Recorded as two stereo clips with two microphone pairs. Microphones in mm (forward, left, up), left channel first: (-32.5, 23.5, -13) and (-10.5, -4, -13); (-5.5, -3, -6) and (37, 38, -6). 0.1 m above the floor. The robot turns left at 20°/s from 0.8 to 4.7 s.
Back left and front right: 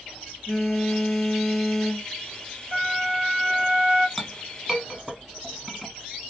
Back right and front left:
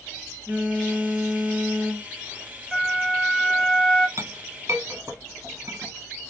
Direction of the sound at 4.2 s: 45° left.